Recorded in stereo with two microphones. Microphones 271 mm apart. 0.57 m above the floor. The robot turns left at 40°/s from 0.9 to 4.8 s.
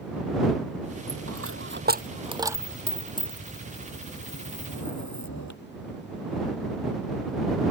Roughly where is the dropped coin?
Right.